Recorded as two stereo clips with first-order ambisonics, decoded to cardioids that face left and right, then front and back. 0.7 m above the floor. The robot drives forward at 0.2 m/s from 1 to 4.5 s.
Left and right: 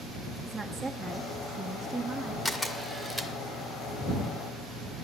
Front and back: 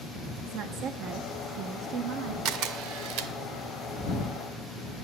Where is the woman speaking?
175° right, 0.6 m.